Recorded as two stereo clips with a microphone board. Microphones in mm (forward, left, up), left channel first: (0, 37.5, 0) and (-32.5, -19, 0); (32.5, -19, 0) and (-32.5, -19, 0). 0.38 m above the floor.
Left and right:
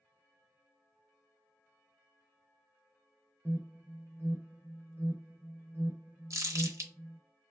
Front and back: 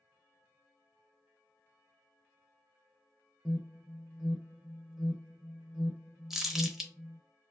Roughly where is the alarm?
Right.